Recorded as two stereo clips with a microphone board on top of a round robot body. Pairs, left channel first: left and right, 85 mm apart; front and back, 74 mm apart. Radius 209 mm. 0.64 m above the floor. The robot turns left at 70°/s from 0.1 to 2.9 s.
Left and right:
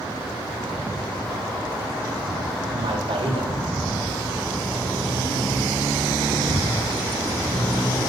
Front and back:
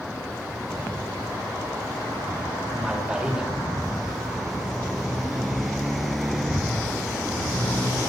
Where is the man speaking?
90° right, 3 m; by 3.5 s 100° right, 3 m.